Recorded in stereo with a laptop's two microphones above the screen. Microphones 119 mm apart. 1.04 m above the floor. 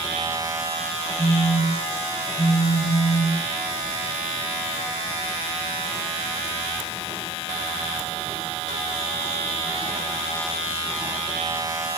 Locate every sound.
1.2 s a phone buzzing: 55° left (ahead or behind), 4.5 m